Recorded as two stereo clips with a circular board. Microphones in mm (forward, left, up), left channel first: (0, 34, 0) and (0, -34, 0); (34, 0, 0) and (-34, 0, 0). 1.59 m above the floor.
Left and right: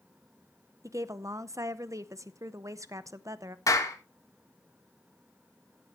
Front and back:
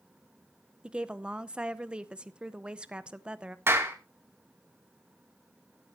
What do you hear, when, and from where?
0.8 s a woman speaking: 110° right, 0.7 m
3.7 s a clap: 125° left, 2 m